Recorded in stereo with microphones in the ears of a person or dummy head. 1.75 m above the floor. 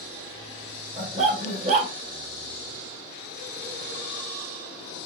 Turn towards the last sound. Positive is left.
turn(degrees=-30)  # may be behind; listen again after turning